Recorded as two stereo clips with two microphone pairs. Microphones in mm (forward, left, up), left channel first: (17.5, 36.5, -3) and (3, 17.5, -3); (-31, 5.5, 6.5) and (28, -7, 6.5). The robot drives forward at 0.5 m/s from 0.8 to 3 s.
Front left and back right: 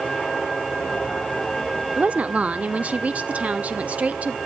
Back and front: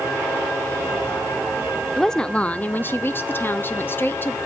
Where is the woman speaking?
105° right, 0.7 m; by 4.4 s 140° right, 1.0 m.